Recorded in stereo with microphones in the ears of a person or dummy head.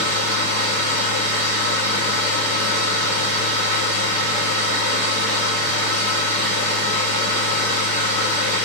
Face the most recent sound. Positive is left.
turn(degrees=45)  # may be behind; listen again after turning